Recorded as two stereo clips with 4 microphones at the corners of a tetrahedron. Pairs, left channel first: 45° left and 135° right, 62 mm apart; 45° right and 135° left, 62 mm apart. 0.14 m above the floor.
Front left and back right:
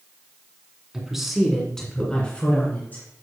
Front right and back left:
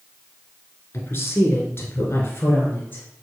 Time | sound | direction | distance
0.9 | a woman speaking | 60° right | 2 m